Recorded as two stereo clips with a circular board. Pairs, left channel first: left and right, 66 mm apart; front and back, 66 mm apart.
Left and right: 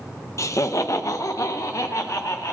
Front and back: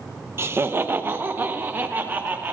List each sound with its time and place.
0.4 s laughter: 130° left, 0.8 m; by 2.5 s 120° left, 2.5 m